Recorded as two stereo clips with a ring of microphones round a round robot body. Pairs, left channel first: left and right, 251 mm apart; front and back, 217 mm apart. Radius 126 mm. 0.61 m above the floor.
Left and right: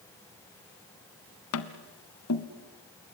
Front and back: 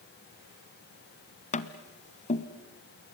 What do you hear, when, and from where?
1.5 s tapping: 55° left, 1.2 m